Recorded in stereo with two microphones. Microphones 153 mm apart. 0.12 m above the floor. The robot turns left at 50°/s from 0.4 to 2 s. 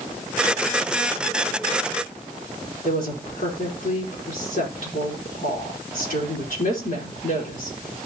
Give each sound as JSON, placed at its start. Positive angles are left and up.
{"t": 2.8, "sound": "a woman speaking", "side_deg": 65, "distance_m": 4.5}